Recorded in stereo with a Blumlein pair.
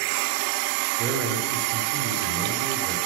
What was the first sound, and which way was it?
A man speaking, 40° right.